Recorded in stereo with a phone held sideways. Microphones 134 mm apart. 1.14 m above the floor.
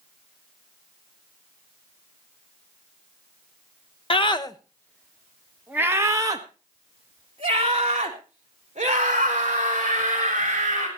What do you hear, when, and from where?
4.1 s a scream: 40° left (ahead or behind), 1.1 m; by 10.9 s 55° right (ahead or behind), 4 m